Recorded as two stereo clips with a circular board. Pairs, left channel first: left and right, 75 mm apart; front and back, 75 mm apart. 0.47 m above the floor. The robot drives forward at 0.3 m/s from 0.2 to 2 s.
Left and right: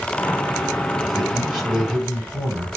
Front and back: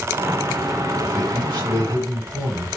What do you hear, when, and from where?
1.0 s a man speaking: straight behind, 2 m